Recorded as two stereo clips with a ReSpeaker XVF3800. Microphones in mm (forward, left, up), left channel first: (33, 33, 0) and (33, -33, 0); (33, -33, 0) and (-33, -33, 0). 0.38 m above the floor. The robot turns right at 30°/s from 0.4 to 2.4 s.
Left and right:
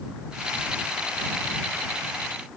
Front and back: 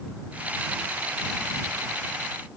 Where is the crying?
I don't hear crying.